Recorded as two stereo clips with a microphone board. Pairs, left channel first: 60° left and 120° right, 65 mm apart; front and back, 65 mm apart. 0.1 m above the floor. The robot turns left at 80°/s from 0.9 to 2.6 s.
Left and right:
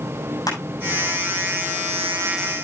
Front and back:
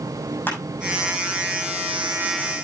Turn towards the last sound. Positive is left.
turn(degrees=-80)